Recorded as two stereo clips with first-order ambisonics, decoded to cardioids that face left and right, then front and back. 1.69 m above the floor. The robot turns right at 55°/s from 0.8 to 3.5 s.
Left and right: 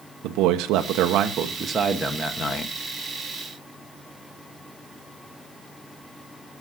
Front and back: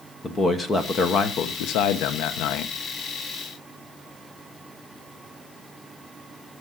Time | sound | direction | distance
0.2 | a man speaking | 70° right | 1.0 m